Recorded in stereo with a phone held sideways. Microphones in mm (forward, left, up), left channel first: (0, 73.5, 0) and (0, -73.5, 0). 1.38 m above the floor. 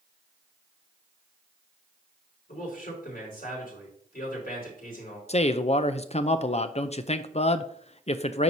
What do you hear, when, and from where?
2.5 s a man speaking: 80° left, 4.5 m
5.3 s a man speaking: 45° left (ahead or behind), 0.5 m